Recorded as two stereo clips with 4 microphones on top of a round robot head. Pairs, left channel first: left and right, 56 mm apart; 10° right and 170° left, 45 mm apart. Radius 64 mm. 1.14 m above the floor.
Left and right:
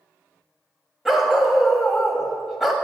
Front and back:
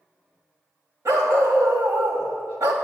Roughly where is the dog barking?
Behind.